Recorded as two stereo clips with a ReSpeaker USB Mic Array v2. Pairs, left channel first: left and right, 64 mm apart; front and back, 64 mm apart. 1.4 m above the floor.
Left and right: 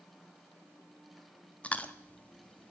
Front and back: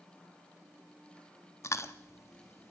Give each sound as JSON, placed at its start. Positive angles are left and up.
{"t": 1.6, "sound": "chewing", "azimuth_deg": 25, "distance_m": 1.2}